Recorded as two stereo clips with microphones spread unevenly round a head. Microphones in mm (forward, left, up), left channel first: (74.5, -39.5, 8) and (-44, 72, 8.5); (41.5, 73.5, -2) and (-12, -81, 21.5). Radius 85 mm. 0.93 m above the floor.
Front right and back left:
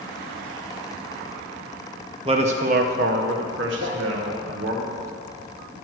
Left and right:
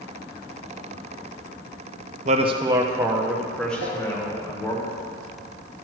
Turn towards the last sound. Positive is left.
turn(degrees=80)